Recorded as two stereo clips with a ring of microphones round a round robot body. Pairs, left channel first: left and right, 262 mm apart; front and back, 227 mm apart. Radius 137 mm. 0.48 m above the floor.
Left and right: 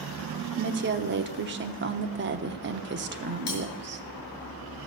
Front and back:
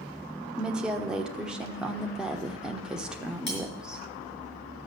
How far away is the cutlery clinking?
About 5.5 m.